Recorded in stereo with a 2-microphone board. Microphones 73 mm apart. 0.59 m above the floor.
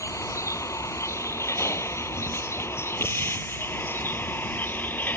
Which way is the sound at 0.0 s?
45° left (ahead or behind).